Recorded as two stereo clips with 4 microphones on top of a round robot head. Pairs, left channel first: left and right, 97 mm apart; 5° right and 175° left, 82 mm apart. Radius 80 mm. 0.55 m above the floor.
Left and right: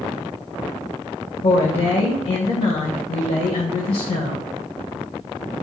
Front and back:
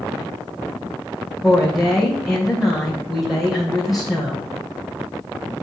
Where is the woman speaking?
85° left, 2.5 m.